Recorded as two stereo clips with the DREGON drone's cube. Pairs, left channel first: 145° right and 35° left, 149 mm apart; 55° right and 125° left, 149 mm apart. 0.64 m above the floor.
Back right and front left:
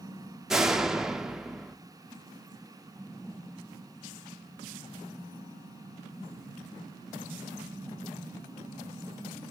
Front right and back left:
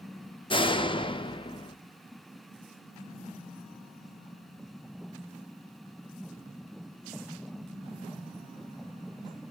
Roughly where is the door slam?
Ahead right.